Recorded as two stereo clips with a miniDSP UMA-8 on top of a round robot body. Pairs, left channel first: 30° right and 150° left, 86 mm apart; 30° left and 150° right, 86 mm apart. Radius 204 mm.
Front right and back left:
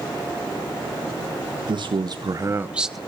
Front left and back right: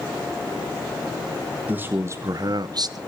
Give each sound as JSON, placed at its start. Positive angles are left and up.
{"t": 1.7, "sound": "a man speaking", "azimuth_deg": 140, "distance_m": 1.4}